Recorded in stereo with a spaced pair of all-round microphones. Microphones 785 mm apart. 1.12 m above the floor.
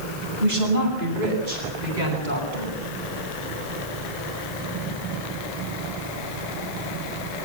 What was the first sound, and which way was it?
A woman speaking, 55° right (ahead or behind).